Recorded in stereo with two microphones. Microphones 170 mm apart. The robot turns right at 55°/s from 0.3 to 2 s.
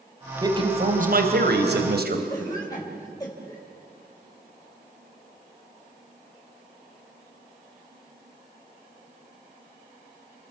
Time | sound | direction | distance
0.4 | a man speaking | 160° right | 3 m
2.3 | a cough | 20° left (ahead or behind) | 3 m